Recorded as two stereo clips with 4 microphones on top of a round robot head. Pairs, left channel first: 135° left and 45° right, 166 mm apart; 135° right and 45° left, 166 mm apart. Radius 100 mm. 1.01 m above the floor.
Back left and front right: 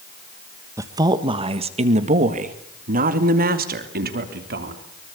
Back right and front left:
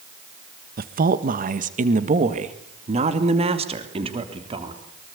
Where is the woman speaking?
25° left, 1.4 m; by 4.8 s 15° right, 3.5 m.